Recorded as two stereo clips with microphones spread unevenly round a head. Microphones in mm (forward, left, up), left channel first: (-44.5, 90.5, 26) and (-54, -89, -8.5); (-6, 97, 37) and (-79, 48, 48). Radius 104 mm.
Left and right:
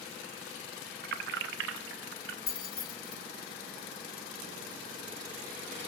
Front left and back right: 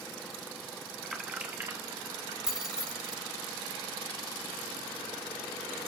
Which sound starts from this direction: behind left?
Keys jangling, at 2.5 s.